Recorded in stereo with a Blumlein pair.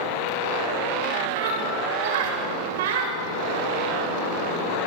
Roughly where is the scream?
Ahead right.